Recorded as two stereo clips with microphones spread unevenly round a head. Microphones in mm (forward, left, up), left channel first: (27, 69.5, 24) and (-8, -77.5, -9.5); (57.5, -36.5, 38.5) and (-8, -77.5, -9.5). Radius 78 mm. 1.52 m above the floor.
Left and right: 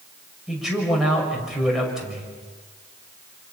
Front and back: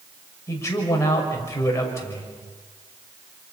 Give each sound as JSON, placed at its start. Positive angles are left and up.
{"t": 0.5, "sound": "a man speaking", "azimuth_deg": -15, "distance_m": 6.0}